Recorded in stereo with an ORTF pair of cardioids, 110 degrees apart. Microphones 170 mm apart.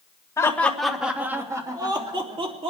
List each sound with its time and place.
0.4 s laughter: 15° left, 1.8 m; by 2.7 s 35° right, 3.5 m